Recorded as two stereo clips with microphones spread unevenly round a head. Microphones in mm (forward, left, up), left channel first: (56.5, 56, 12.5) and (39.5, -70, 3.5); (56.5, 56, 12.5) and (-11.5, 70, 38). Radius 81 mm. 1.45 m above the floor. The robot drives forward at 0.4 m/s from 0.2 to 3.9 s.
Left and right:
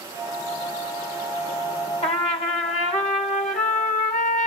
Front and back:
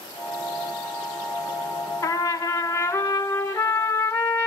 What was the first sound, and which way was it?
A trumpet, 40° left.